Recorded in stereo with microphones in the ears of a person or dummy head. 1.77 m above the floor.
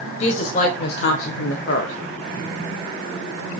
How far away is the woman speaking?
About 1.5 m.